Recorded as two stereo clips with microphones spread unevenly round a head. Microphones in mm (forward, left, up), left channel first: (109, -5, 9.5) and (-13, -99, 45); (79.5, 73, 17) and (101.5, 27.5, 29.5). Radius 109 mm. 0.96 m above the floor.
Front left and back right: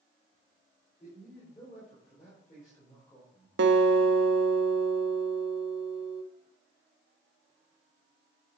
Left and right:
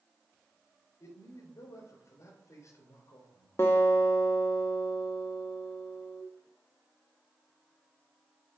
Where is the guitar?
170° right, 0.5 m.